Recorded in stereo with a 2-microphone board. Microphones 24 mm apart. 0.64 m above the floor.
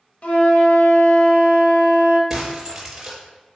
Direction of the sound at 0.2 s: 55° left (ahead or behind).